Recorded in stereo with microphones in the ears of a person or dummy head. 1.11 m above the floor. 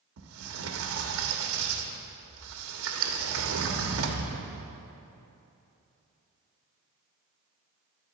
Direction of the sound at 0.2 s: 75° right (ahead or behind).